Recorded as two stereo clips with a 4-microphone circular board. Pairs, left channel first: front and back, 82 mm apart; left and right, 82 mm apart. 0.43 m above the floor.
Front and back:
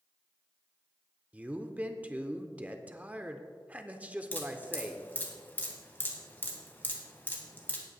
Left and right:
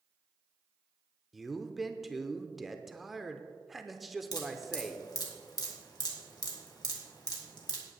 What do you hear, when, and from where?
1.3 s a man speaking: 175° right, 0.7 m
4.3 s dripping: 65° left, 2 m